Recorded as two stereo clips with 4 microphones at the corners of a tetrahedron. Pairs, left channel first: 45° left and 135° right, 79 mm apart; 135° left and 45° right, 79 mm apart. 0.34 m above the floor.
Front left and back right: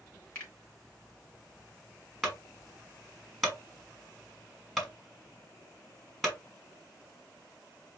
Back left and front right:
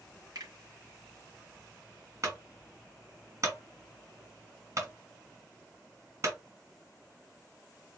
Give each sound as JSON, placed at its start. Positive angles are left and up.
{"t": 0.3, "sound": "a finger snap", "azimuth_deg": -15, "distance_m": 3.0}
{"t": 2.2, "sound": "a clunk", "azimuth_deg": -45, "distance_m": 1.9}